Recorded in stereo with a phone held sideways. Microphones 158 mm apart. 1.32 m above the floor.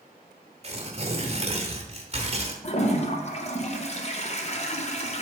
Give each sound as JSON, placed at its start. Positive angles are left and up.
{"t": 0.6, "sound": "tearing paper", "side_deg": -40, "distance_m": 1.2}
{"t": 2.6, "sound": "a toilet flushing", "side_deg": 40, "distance_m": 0.7}